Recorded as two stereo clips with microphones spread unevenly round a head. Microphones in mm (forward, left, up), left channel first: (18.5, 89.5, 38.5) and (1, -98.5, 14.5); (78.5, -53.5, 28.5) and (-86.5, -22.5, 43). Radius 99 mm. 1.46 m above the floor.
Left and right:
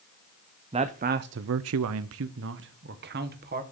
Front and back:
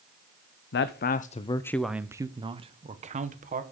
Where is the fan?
I don't hear a fan.